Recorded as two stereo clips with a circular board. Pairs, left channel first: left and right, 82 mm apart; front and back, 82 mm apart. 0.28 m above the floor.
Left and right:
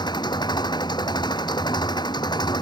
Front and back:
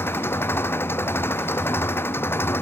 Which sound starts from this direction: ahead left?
An engine running, at 0.0 s.